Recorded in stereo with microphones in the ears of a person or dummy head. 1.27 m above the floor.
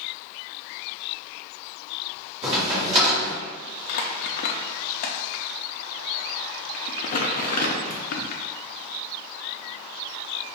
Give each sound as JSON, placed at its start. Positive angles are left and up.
{"t": 2.4, "sound": "a crack", "side_deg": -25, "distance_m": 1.4}
{"t": 3.9, "sound": "crumpling", "side_deg": 50, "distance_m": 0.5}